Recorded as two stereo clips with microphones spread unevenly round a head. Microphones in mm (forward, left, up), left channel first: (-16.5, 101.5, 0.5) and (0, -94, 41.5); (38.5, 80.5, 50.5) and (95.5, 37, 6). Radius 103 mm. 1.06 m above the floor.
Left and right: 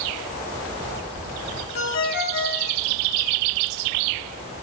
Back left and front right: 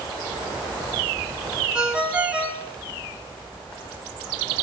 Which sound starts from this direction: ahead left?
A ringtone, at 1.8 s.